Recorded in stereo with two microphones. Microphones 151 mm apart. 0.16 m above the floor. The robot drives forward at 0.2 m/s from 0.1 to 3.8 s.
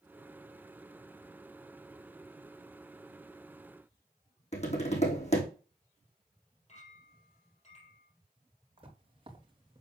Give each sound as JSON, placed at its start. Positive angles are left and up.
{"t": 4.5, "sound": "tapping", "side_deg": 45, "distance_m": 3.5}
{"t": 6.7, "sound": "a clink", "side_deg": 45, "distance_m": 4.0}
{"t": 8.8, "sound": "footsteps", "side_deg": -35, "distance_m": 3.5}